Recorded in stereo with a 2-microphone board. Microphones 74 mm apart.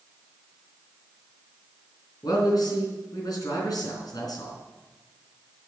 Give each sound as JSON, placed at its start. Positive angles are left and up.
{"t": 2.2, "sound": "a man speaking", "side_deg": 65, "distance_m": 4.0}